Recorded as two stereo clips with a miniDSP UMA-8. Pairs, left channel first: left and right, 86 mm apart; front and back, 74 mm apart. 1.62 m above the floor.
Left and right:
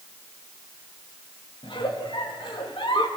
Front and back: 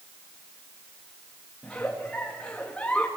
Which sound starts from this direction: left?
A giggle, at 1.6 s.